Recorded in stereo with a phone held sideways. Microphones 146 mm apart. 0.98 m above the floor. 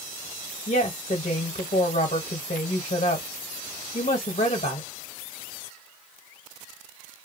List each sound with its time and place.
0.7 s a woman speaking: 60° left (ahead or behind), 0.8 m